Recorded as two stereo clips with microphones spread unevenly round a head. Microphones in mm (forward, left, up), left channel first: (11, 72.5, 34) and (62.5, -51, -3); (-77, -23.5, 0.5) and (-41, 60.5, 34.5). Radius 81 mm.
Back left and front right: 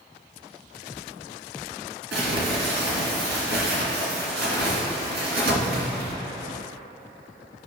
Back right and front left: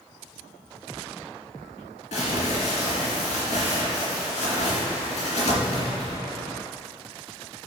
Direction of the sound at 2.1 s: 80° right.